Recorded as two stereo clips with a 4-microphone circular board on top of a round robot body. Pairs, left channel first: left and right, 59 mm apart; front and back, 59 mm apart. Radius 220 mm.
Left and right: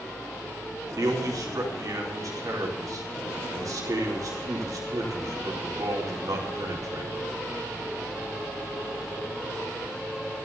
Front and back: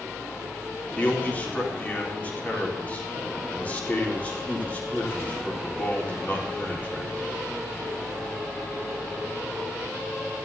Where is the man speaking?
65° right, 4 m.